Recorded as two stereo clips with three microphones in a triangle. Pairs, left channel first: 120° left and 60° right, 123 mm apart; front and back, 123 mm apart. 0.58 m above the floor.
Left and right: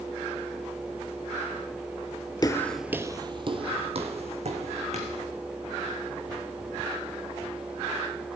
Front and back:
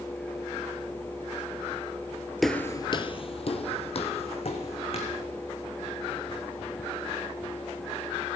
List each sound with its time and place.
2.4 s footsteps: 90° left, 0.7 m; by 5.2 s 35° right, 3 m